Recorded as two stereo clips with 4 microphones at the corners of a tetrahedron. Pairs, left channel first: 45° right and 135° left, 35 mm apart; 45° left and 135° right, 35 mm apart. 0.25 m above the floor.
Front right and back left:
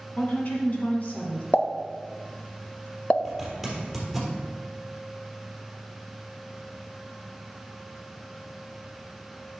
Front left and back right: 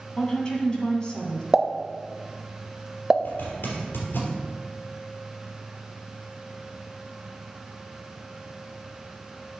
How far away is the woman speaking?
About 1.9 m.